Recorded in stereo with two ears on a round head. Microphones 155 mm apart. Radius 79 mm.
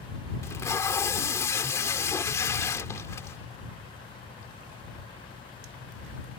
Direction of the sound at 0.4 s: 20° left (ahead or behind).